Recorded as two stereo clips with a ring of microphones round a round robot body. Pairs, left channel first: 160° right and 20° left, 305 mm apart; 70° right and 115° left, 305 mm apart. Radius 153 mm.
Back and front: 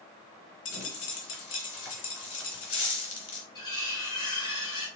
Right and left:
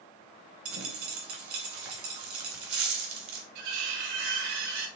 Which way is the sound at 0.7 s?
145° left.